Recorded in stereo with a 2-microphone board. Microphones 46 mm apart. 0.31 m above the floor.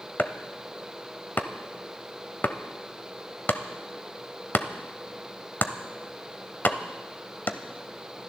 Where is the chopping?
45° left (ahead or behind), 0.8 m.